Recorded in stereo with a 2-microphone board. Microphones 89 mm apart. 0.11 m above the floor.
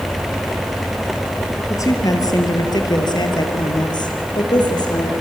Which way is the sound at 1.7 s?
35° left (ahead or behind).